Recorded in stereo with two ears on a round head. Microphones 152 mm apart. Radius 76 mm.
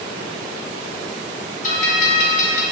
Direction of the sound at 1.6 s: 45° left (ahead or behind).